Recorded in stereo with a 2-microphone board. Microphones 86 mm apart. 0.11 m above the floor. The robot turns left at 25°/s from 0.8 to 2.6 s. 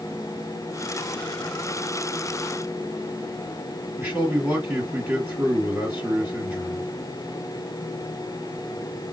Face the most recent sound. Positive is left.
turn(degrees=-20)  # may be behind; listen again after turning